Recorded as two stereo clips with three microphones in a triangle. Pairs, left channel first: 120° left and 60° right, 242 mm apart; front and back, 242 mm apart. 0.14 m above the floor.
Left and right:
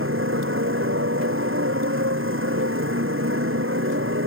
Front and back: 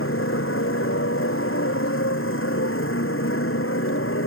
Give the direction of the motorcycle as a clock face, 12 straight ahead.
1 o'clock.